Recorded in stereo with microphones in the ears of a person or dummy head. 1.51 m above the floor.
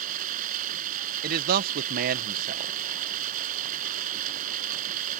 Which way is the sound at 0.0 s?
45° right (ahead or behind).